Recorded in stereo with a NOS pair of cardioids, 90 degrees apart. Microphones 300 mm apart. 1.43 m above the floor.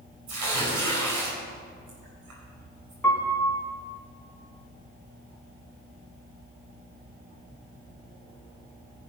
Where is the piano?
5° left, 2.5 m.